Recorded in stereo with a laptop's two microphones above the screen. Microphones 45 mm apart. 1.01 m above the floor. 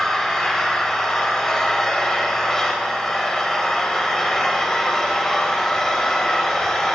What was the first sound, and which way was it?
An engine running, 15° left (ahead or behind).